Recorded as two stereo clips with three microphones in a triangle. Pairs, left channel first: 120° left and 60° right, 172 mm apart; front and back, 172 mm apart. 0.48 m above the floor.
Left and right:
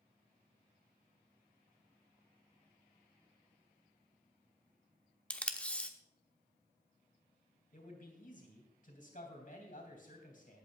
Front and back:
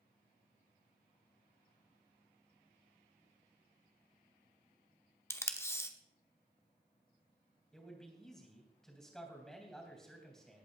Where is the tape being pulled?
50° left, 0.9 m.